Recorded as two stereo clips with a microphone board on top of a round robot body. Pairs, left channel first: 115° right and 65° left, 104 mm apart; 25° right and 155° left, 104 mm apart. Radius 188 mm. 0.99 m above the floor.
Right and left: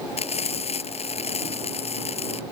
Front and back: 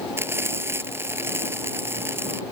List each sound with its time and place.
0.2 s frying: 135° right